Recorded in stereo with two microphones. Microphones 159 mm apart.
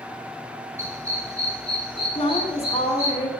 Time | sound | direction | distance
0.8 | a dog barking | 15° right (ahead or behind) | 3.5 m
2.1 | a woman speaking | 40° left (ahead or behind) | 1.5 m